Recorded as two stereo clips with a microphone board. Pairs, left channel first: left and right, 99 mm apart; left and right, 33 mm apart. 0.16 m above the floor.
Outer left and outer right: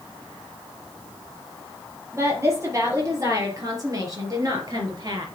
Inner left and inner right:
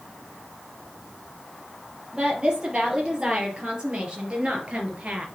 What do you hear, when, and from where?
2.1 s a woman speaking: 30° right (ahead or behind), 4 m; by 5.3 s 40° right (ahead or behind), 3 m